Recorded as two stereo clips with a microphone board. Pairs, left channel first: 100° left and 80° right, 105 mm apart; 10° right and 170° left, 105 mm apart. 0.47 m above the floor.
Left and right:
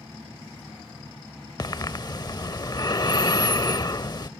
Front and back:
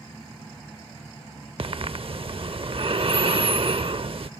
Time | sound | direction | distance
1.6 | breathing | 145° left | ?